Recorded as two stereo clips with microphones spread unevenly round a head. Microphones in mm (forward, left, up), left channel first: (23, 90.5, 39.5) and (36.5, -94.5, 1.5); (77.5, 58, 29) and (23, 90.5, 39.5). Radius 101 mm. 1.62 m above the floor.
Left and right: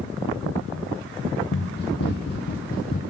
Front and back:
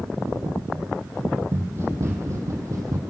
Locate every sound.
1.5 s running footsteps: 110° left, 3.5 m; by 3.0 s 130° left, 3.5 m